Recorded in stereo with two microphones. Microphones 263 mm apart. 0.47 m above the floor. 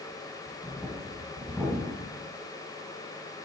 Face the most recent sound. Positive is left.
turn(degrees=5)  # may be behind; listen again after turning